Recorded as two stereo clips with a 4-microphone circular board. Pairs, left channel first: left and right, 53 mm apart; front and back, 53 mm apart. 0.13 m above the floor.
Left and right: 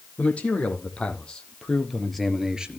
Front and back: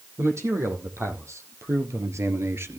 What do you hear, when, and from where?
0.2 s a man speaking: 155° left, 5 m; by 2.8 s 155° right, 1.8 m